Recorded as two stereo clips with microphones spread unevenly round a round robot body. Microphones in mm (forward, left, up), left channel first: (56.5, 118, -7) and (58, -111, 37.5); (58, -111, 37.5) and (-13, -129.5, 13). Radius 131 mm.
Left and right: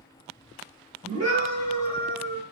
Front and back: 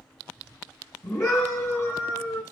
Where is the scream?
30° right, 3 m; by 2.4 s 45° right, 3 m.